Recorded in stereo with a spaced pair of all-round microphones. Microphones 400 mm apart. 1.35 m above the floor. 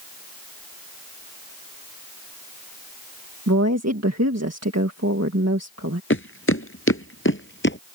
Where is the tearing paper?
No tearing paper in this recording.